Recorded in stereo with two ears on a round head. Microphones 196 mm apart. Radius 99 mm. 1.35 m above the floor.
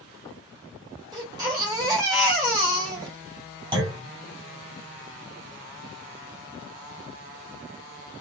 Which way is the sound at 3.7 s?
20° right (ahead or behind).